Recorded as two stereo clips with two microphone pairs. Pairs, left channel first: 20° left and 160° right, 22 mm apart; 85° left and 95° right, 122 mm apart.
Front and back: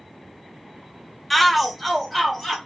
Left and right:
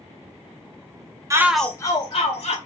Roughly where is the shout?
Ahead right.